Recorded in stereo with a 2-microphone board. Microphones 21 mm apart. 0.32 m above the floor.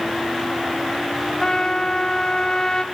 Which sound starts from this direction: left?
A trumpet, at 1.4 s.